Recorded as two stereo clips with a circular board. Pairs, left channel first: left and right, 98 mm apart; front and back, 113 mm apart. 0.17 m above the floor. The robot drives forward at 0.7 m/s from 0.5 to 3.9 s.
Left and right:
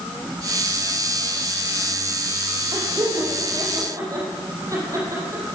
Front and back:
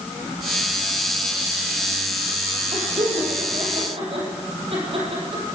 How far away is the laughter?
About 6 m.